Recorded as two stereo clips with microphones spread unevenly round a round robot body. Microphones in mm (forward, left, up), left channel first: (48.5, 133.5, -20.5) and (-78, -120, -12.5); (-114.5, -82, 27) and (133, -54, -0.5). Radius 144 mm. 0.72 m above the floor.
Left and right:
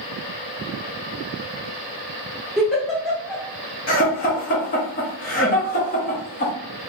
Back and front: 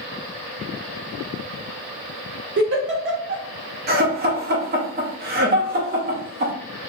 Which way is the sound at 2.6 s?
25° right.